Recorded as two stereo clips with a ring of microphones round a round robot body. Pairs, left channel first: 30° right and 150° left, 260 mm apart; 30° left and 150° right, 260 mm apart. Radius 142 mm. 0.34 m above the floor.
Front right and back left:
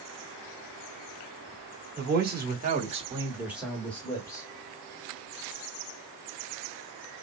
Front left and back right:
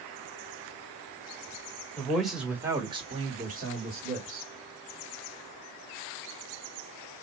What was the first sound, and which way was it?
A man speaking, 115° left.